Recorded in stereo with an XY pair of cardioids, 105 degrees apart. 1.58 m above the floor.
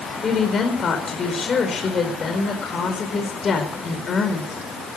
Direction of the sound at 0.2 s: 45° left.